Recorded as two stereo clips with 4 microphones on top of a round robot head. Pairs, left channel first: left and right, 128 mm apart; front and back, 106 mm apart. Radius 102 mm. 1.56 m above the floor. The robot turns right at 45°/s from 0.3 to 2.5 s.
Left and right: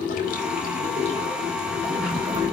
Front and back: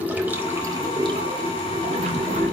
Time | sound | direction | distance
0.0 | running water | 105° left | 4 m